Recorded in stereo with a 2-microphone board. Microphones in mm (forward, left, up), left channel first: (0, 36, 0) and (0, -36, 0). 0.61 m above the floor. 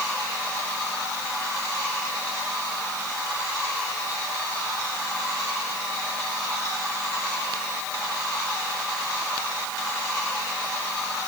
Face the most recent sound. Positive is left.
No sound to turn to.